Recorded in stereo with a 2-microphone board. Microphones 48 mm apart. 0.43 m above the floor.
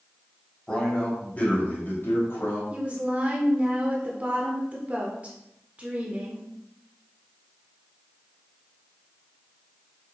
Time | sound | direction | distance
0.7 | a man speaking | 15° left (ahead or behind) | 2.5 m
2.7 | a woman speaking | 30° right (ahead or behind) | 0.9 m